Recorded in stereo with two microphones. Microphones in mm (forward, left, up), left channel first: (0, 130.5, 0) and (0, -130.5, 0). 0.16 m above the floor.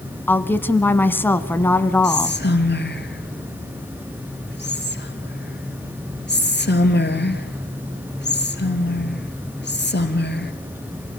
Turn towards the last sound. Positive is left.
turn(degrees=40)  # may be behind; listen again after turning